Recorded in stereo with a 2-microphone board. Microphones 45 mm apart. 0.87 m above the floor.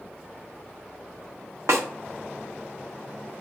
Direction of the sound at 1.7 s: 80° right.